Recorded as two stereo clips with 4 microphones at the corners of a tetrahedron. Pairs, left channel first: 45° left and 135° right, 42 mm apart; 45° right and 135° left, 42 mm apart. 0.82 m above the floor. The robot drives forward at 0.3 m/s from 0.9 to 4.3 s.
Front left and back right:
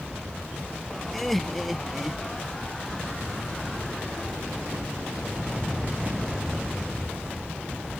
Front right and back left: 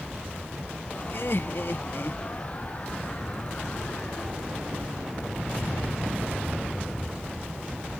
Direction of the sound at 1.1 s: 40° right.